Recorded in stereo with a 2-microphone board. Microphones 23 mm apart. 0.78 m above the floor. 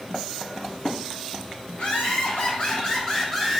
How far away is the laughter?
About 1.5 m.